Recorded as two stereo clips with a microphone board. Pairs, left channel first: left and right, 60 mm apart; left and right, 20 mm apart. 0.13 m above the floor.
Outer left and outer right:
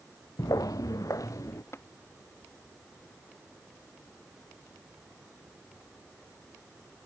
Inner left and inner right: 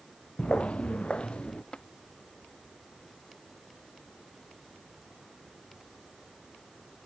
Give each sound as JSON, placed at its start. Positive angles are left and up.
{"t": 0.4, "sound": "footsteps", "side_deg": 85}
{"t": 1.7, "sound": "tapping", "side_deg": 45}